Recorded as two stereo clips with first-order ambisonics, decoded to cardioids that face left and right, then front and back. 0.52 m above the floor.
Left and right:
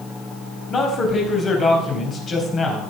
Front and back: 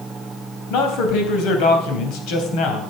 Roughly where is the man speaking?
Ahead left.